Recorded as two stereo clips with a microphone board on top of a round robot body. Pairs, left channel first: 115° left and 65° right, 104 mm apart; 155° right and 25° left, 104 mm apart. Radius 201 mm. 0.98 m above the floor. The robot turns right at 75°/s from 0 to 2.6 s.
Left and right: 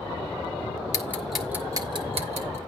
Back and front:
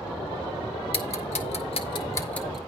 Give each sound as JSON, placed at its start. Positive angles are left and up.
{"t": 0.9, "sound": "ticking", "azimuth_deg": 175, "distance_m": 1.5}